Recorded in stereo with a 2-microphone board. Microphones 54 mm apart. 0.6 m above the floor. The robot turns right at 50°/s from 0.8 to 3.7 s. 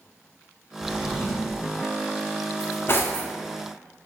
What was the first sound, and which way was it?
A drawer, 155° left.